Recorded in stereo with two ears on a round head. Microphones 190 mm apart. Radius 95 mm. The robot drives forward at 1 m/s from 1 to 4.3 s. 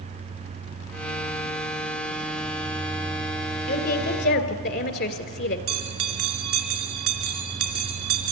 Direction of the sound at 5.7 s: 75° right (ahead or behind).